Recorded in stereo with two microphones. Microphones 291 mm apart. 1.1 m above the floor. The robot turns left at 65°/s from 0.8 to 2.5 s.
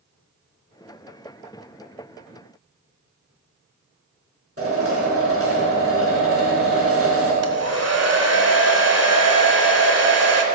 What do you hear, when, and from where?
4.6 s a drill: 45° right (ahead or behind), 5.5 m
7.4 s a hair dryer: 55° right (ahead or behind), 1.5 m